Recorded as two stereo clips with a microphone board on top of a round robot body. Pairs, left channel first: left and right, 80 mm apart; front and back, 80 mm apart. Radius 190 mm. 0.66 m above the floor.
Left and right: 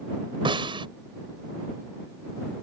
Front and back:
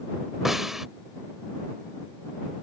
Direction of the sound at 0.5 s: 95° right.